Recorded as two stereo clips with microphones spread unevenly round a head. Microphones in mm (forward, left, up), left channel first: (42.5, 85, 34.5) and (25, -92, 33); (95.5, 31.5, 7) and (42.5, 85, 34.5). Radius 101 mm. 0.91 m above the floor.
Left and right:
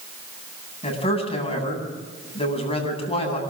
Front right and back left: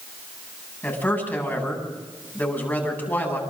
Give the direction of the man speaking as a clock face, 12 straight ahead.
11 o'clock.